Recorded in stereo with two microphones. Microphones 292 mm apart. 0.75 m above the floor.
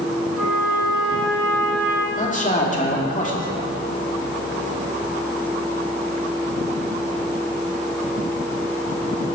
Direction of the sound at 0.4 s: 5° right (ahead or behind).